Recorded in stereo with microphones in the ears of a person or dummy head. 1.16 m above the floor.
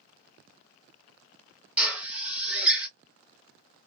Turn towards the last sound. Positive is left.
turn(degrees=-5)  # may be behind; listen again after turning